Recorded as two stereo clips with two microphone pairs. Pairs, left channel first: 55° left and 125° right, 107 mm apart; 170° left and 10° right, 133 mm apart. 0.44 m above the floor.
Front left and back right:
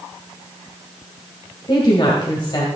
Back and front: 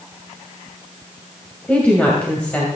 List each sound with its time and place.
1.7 s a woman speaking: 95° left, 2 m